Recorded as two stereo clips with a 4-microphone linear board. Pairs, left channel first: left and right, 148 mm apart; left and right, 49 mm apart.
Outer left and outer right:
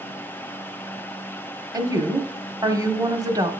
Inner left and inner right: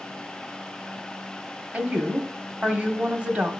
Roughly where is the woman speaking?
Right.